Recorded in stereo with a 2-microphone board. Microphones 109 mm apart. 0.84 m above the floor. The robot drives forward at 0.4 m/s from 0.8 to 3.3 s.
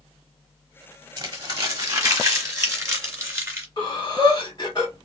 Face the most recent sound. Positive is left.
turn(degrees=40)  # may be behind; listen again after turning